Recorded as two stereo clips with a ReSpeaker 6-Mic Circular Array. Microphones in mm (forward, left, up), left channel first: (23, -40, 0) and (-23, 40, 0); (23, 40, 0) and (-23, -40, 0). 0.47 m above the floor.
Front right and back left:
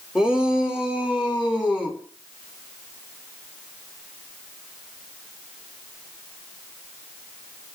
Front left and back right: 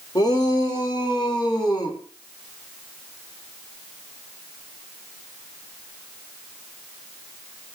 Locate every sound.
0.1 s a shout: 40° left, 2 m